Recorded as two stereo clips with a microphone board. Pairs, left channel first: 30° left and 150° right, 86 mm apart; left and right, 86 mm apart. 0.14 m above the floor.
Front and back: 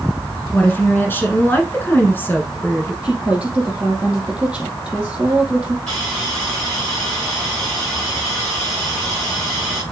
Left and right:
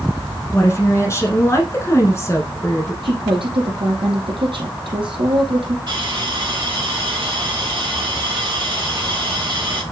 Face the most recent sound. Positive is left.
turn(degrees=-50)